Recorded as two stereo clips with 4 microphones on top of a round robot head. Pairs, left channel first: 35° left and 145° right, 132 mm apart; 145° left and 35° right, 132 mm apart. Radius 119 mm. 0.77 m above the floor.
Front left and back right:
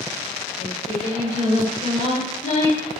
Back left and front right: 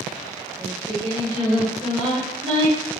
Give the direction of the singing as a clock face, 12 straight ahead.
12 o'clock.